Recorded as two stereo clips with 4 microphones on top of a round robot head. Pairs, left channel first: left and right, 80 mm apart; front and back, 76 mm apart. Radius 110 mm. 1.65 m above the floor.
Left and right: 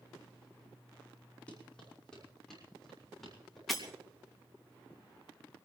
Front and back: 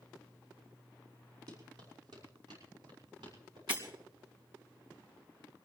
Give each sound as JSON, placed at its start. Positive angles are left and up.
{"t": 1.5, "sound": "running footsteps", "azimuth_deg": 165, "distance_m": 5.5}
{"t": 3.7, "sound": "breaking glass", "azimuth_deg": 180, "distance_m": 2.0}